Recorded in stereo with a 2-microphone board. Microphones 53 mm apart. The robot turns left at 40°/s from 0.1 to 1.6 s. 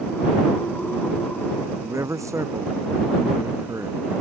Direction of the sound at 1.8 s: 75° right (ahead or behind).